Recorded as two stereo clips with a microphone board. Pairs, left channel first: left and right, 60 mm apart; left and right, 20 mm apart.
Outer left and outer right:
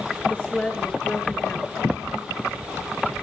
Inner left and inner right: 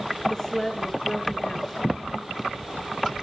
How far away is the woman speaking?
About 6 m.